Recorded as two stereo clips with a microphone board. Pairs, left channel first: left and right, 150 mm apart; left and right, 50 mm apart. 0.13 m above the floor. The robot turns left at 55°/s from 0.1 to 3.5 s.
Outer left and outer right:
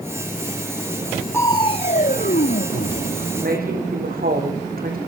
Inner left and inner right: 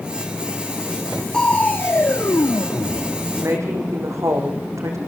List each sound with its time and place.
1.3 s crushing: 165° left, 1.9 m; by 3.3 s 55° left, 1.9 m
3.4 s a woman speaking: 80° right, 6.5 m